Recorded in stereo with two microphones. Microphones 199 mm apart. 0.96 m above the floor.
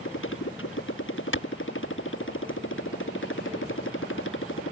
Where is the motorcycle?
85° left.